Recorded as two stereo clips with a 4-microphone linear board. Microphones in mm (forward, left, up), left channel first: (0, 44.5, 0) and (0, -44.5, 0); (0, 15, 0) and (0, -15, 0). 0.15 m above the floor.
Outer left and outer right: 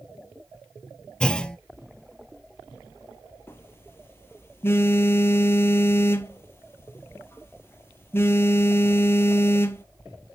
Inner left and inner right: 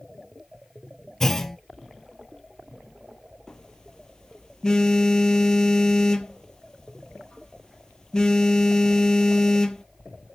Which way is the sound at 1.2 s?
10° left (ahead or behind).